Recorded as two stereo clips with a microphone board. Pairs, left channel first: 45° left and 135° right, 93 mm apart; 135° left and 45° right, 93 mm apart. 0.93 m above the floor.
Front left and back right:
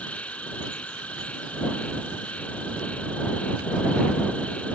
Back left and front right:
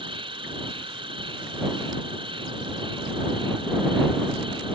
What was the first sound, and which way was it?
An insect, 30° right.